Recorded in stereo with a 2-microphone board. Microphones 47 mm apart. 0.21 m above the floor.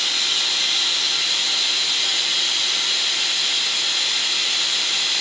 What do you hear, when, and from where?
0.0 s running water: centre (ahead or behind)